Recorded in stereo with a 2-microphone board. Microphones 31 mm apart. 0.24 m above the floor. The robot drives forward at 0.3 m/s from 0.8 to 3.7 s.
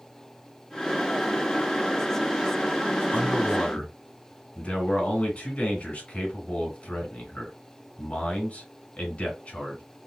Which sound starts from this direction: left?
A man speaking, at 3.1 s.